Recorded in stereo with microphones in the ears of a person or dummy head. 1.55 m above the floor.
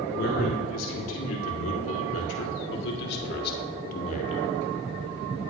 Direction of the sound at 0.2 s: 85° left.